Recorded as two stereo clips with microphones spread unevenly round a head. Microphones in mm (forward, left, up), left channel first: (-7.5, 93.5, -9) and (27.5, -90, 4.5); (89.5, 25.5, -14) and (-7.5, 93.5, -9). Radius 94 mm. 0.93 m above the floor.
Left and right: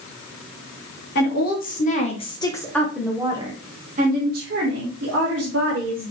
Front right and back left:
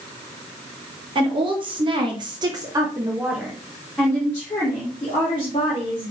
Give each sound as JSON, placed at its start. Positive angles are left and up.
{"t": 1.1, "sound": "a woman speaking", "azimuth_deg": 110, "distance_m": 1.4}